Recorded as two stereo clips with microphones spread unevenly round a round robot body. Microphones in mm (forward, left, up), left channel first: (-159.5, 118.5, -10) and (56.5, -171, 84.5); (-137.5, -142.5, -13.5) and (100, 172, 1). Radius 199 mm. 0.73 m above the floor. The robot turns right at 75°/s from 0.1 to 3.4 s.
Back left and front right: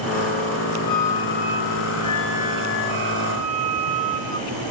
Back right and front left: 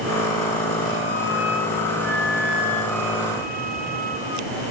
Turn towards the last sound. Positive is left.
turn(degrees=-30)